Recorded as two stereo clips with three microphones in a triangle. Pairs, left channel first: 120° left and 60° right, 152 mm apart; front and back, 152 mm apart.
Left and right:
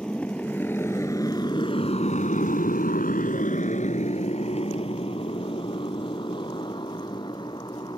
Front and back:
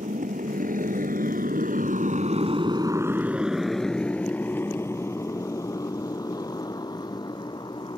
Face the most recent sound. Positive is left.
turn(degrees=60)